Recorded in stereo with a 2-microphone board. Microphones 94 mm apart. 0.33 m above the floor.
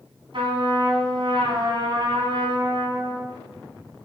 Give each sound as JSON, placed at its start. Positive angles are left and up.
{"t": 0.3, "sound": "a trumpet", "side_deg": -65, "distance_m": 2.5}